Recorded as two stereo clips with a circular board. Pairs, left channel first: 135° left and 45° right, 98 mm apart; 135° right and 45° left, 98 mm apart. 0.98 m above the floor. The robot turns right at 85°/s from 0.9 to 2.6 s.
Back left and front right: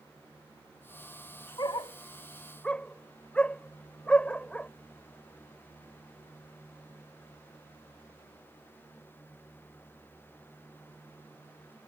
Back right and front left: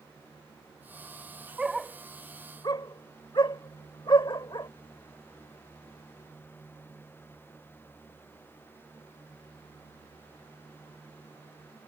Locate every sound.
1.6 s a dog barking: 120° left; by 4.7 s 155° right